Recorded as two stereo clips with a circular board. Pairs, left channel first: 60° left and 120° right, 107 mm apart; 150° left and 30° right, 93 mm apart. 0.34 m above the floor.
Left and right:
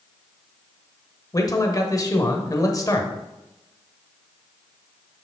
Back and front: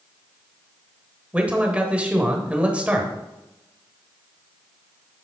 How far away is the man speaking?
About 1.1 m.